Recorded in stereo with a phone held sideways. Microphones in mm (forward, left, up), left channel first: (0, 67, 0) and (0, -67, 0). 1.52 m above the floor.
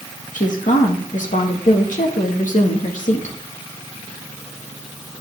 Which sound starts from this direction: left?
A woman speaking, at 0.3 s.